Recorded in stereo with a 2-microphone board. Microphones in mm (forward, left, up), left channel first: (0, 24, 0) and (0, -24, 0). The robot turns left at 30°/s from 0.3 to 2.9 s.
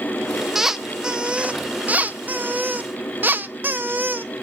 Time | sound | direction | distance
0.6 | a squeak | 15° right | 0.6 m